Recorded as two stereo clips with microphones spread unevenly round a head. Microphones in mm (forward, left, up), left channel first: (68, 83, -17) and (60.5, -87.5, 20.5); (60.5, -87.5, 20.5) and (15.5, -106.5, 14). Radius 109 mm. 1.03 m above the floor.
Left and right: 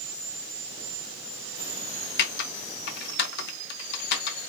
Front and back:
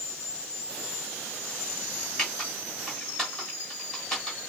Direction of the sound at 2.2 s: 100° left.